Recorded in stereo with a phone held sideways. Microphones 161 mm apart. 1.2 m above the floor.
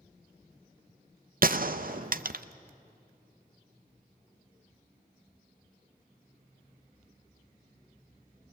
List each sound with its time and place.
1.4 s a gunshot: 60° right (ahead or behind), 0.5 m